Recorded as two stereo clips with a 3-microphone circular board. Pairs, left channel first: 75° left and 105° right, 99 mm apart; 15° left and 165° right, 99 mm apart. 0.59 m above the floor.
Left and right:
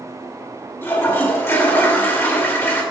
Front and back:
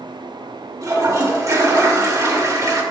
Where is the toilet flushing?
140° left, 1.6 m.